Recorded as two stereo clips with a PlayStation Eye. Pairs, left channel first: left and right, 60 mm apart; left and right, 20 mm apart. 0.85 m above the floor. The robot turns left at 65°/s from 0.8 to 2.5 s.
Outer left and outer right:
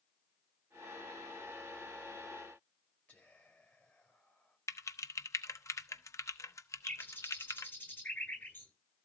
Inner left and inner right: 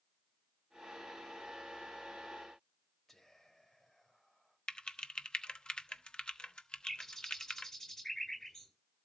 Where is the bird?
30° left (ahead or behind), 9 m.